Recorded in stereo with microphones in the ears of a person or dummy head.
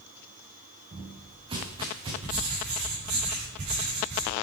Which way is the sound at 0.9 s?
30° right (ahead or behind).